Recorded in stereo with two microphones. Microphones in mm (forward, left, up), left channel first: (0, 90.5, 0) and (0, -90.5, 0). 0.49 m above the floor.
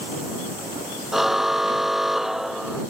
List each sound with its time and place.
1.1 s a car horn: centre (ahead or behind)